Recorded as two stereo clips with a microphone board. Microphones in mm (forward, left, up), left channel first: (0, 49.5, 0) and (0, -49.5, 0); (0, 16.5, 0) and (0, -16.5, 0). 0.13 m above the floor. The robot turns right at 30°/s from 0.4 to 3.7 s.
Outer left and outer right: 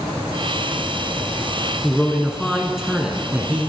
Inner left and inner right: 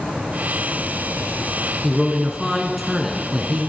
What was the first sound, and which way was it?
A man speaking, 5° left (ahead or behind).